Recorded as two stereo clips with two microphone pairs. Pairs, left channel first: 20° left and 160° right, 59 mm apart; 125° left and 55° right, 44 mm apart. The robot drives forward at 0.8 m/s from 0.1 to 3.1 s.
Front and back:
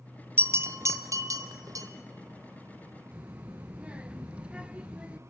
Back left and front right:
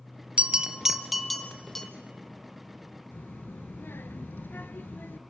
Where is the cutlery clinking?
No cutlery clinking in this recording.